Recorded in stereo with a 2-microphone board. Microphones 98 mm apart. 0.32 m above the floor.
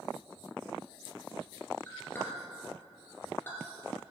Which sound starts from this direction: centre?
A clink, at 1.9 s.